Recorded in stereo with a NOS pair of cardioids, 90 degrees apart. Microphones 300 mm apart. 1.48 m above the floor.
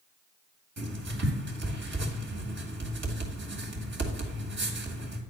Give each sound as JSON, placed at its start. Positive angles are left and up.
{"t": 0.8, "sound": "writing", "azimuth_deg": -40, "distance_m": 2.0}